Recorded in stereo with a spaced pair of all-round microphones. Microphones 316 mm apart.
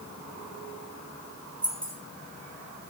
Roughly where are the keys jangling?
Right.